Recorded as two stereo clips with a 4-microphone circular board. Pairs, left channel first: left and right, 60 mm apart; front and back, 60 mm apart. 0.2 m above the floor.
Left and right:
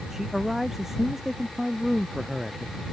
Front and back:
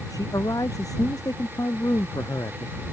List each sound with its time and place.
0.1 s a man speaking: 5° right